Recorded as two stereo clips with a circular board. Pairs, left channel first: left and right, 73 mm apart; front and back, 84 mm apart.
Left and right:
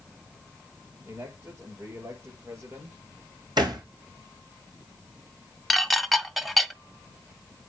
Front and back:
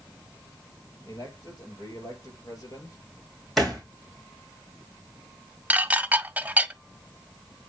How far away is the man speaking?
About 5.5 m.